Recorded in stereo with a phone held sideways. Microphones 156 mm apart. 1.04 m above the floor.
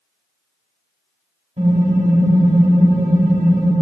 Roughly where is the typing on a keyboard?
Right.